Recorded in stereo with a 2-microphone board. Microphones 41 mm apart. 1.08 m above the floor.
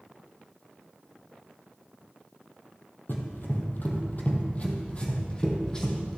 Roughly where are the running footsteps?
Left.